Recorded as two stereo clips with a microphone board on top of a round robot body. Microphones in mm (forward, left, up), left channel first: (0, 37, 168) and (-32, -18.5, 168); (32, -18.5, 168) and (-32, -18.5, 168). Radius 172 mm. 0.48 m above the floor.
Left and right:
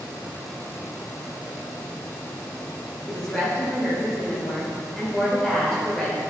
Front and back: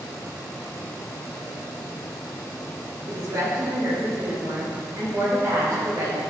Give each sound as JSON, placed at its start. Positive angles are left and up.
{"t": 3.1, "sound": "a woman speaking", "azimuth_deg": 140, "distance_m": 2.0}